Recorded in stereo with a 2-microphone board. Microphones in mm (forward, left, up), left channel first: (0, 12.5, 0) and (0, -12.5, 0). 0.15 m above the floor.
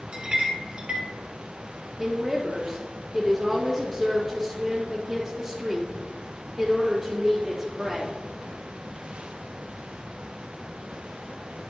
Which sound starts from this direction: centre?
A woman speaking, at 2.0 s.